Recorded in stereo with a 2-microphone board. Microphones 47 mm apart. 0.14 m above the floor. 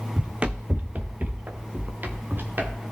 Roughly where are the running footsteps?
Right.